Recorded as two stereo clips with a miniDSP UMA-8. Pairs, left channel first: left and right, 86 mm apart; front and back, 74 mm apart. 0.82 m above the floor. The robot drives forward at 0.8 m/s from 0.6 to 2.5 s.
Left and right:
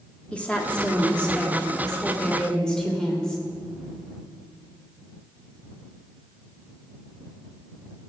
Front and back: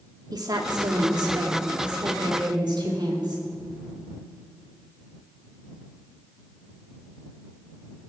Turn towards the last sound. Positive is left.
turn(degrees=170)